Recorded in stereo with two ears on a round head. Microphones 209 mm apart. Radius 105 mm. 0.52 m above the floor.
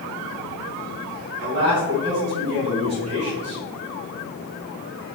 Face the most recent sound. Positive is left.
turn(degrees=-45)  # may be behind; listen again after turning